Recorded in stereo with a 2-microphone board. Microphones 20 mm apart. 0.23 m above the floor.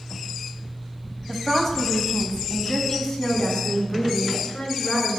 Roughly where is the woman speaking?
Centre.